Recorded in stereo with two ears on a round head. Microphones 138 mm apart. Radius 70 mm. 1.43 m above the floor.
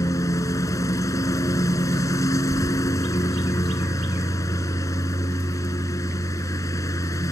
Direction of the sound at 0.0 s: 20° left (ahead or behind).